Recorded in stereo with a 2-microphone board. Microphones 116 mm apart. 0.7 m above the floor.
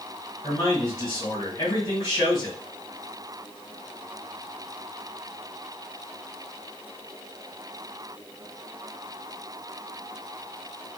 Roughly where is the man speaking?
Left.